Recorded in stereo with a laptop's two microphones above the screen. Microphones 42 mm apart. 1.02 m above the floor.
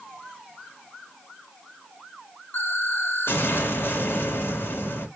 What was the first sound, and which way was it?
An explosion, 65° left (ahead or behind).